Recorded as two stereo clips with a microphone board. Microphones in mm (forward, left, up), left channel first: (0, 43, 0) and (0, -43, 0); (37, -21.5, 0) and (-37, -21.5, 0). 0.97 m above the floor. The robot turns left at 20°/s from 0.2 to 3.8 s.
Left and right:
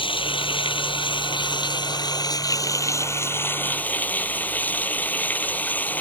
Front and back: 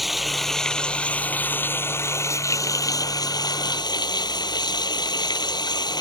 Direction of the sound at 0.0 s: 90° left.